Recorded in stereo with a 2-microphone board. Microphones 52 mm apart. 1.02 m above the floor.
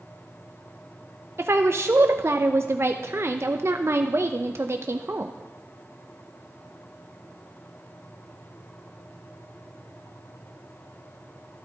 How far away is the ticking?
No ticking in this recording.